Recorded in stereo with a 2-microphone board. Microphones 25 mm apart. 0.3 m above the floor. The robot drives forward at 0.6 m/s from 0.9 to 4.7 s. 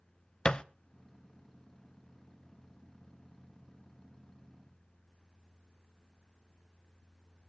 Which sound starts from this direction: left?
A thud, at 0.5 s.